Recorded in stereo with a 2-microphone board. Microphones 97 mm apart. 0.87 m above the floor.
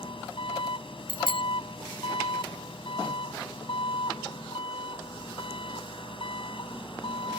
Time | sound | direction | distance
0.0 | an engine running | 70° left (ahead or behind) | ?
1.1 | a bicycle bell | 70° left (ahead or behind) | ?